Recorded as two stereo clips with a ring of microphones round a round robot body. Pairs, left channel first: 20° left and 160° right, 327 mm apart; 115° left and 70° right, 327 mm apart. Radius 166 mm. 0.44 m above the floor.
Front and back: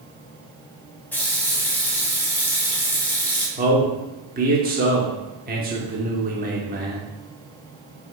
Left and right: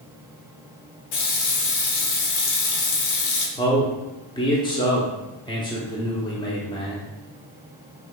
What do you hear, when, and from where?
1.1 s a running tap: 105° left, 1.0 m
3.6 s a man speaking: 175° left, 0.8 m